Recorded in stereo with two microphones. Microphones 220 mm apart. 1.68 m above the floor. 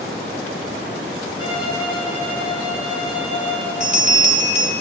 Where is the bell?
35° right (ahead or behind), 3 m.